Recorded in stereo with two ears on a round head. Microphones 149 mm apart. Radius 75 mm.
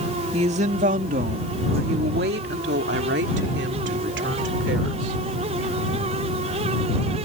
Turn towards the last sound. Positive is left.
turn(degrees=-85)